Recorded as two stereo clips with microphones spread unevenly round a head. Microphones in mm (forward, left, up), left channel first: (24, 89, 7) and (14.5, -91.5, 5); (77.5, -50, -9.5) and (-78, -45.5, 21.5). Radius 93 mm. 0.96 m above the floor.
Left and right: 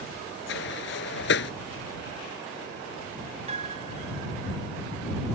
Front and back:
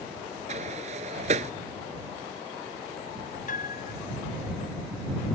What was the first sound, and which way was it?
A sliding door, 120° left.